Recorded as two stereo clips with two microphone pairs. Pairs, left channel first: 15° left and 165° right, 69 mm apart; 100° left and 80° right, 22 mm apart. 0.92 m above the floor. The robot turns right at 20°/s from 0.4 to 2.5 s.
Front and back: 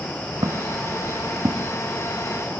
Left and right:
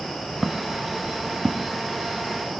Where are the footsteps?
170° right; by 1.7 s 155° right.